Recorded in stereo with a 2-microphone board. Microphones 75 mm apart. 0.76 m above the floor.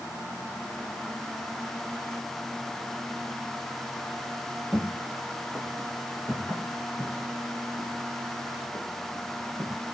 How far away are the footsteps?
About 2 m.